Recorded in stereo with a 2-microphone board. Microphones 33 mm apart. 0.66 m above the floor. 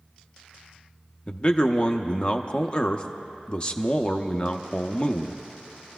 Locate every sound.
1.3 s a man speaking: 30° left (ahead or behind), 0.6 m